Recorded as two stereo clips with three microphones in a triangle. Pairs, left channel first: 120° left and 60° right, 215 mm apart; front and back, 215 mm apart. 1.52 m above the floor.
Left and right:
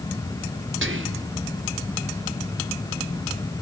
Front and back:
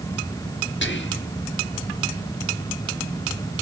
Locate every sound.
0.8 s whispering: 35° right, 0.8 m